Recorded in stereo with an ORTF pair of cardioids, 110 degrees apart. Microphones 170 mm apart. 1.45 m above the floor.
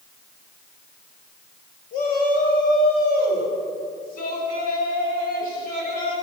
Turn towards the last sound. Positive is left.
turn(degrees=55)